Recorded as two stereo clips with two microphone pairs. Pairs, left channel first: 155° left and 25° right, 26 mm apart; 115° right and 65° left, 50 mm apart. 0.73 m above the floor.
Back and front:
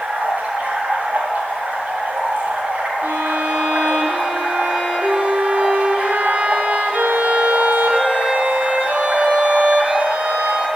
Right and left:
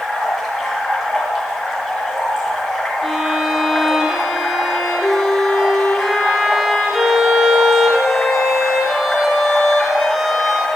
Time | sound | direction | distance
0.0 | running water | 20° right | 4.5 m
3.0 | a violin | 25° right | 4 m